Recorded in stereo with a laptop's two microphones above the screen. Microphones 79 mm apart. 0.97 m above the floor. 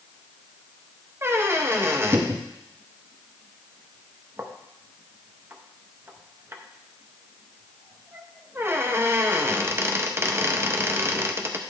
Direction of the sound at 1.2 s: 30° right (ahead or behind).